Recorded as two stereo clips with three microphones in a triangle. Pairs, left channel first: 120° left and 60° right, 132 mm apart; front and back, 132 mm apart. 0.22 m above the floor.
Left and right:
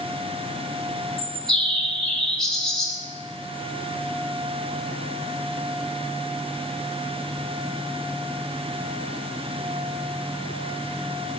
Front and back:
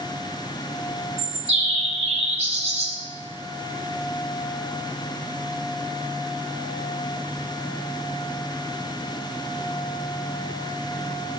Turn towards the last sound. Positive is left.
turn(degrees=-155)